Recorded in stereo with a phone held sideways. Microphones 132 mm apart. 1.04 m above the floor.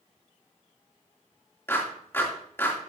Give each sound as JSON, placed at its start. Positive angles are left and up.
{"t": 1.7, "sound": "a clap", "side_deg": 20, "distance_m": 2.5}